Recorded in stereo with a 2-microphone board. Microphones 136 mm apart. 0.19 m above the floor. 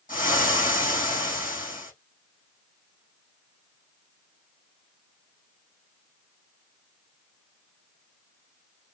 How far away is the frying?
About 3.5 m.